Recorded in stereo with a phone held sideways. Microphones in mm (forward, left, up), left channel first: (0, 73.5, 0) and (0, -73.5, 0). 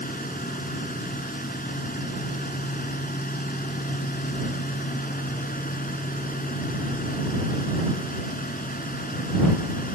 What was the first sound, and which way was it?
A fan, 80° left.